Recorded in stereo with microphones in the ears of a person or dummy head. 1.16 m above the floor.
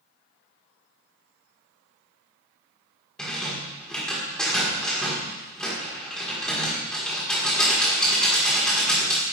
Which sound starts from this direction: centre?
A rattle, at 3.2 s.